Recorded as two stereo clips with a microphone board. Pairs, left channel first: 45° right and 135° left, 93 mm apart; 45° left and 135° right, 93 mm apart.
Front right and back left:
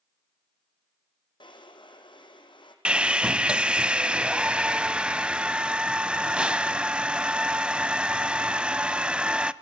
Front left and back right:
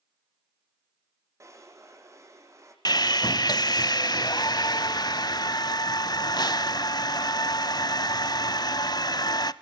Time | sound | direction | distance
1.4 | a drawer | 75° right | 3 m
2.9 | sawing | 60° left | 0.6 m